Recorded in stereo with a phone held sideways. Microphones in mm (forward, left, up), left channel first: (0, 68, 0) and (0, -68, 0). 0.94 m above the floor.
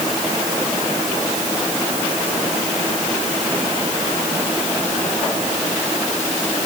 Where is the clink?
No clink in this recording.